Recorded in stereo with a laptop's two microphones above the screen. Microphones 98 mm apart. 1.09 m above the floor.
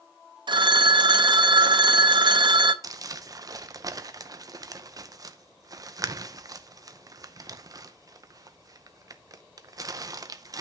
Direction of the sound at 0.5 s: 50° right (ahead or behind).